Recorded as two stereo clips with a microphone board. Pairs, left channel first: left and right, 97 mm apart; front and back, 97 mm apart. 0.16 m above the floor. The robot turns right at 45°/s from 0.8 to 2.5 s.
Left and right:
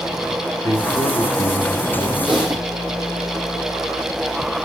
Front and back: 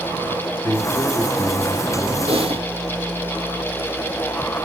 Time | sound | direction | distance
0.6 | a man speaking | 45° left | 3 m
2.3 | typing on a keyboard | 175° left | 3.5 m